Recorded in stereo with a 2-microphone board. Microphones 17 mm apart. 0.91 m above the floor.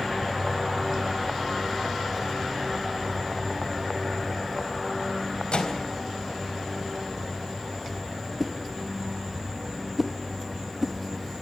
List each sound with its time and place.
5.5 s a microwave: 85° left, 4 m
8.4 s a whoosh: 15° right (ahead or behind), 1.5 m